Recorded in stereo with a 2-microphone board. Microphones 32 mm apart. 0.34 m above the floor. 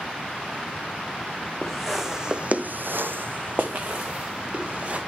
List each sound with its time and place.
1.6 s footsteps: centre (ahead or behind), 1.8 m; by 5.0 s 40° right (ahead or behind), 3.5 m